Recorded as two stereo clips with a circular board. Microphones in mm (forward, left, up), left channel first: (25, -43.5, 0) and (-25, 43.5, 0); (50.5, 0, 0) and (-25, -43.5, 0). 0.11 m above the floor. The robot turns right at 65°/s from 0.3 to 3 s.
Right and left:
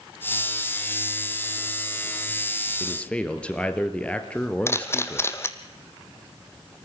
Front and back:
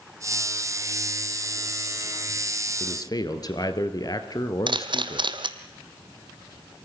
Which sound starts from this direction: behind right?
A camera shutter, at 4.7 s.